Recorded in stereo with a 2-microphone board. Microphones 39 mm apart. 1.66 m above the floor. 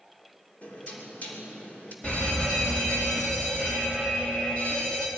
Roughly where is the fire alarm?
Left.